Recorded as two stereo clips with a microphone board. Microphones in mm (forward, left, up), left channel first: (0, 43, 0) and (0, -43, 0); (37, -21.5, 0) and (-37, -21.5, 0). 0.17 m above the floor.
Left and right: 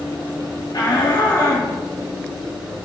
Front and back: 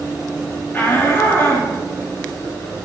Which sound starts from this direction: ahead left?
A shout, at 0.7 s.